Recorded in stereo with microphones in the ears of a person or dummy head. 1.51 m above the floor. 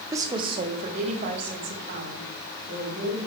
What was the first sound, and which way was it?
A woman speaking, 15° right (ahead or behind).